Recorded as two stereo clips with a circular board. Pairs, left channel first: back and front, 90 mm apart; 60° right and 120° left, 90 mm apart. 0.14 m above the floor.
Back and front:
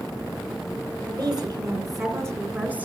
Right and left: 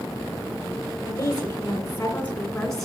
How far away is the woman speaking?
About 2.5 m.